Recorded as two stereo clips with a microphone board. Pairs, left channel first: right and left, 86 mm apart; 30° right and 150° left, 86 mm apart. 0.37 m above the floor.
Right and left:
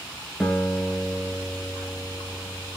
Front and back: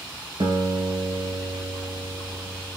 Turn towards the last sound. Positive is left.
turn(degrees=180)